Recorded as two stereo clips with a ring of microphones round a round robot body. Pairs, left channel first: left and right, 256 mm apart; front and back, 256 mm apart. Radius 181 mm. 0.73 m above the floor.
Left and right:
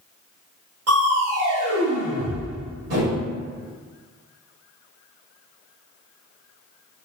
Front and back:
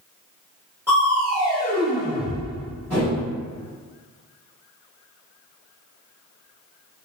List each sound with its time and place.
0.9 s crushing: 95° right, 1.5 m